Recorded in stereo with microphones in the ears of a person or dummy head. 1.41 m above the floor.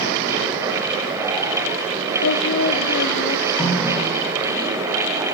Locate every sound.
2.2 s singing: 75° left (ahead or behind), 1.6 m
3.6 s a running tap: 5° left (ahead or behind), 7 m